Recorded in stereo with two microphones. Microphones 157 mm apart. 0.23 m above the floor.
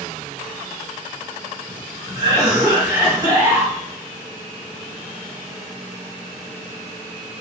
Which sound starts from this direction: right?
A cough, at 2.1 s.